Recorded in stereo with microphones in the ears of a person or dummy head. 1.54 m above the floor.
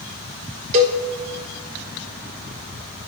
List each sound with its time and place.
0.7 s a cowbell: 40° right (ahead or behind), 1.1 m